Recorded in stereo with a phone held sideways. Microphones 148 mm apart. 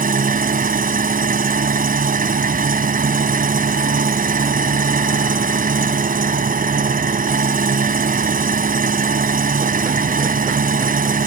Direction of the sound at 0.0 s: 70° right (ahead or behind).